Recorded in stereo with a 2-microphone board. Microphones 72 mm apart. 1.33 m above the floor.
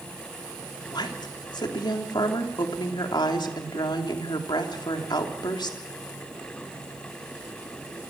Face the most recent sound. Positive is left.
turn(degrees=85)